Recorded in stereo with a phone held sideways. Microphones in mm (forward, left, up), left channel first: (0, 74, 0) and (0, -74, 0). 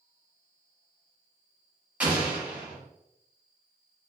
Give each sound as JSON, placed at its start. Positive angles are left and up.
{"t": 2.0, "sound": "an explosion", "side_deg": -10, "distance_m": 0.8}